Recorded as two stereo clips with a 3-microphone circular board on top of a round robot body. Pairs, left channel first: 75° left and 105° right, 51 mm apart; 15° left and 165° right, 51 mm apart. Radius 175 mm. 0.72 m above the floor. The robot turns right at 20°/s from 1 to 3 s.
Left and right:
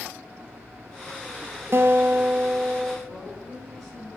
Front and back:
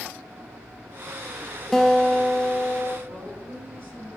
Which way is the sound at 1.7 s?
70° right.